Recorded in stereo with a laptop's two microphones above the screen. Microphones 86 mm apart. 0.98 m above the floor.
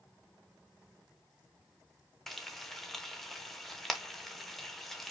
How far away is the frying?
About 0.7 m.